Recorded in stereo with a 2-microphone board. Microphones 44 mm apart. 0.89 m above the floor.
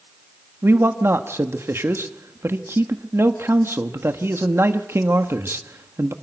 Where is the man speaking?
65° right (ahead or behind), 1.3 m.